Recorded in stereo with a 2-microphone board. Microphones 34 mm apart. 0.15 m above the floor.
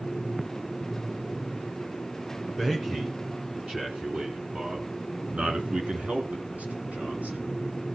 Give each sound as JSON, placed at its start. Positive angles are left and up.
{"t": 2.6, "sound": "a man speaking", "side_deg": -15, "distance_m": 2.0}